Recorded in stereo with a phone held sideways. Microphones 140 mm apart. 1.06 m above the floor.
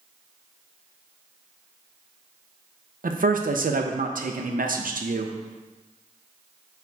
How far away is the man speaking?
About 0.5 m.